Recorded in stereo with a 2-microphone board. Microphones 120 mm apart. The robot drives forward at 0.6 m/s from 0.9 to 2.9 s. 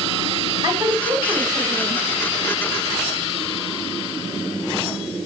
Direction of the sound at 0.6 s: 35° right (ahead or behind).